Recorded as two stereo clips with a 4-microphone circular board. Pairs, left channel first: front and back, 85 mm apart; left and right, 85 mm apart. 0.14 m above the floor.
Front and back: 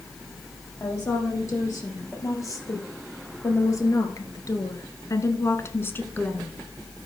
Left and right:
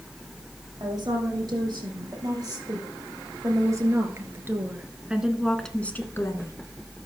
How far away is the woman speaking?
About 4.5 m.